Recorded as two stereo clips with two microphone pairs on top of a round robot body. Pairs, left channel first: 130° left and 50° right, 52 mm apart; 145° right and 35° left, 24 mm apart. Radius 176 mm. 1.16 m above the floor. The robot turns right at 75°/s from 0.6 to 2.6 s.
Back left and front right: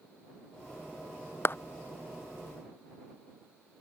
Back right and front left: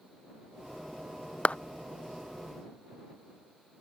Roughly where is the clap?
Behind.